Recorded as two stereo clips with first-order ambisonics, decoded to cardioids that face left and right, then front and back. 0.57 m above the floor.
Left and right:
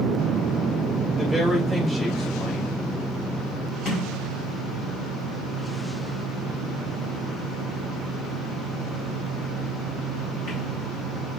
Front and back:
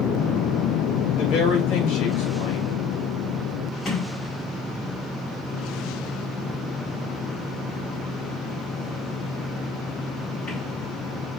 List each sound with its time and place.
1.2 s a woman speaking: straight ahead, 3 m
3.9 s a sliding door: 60° left, 4 m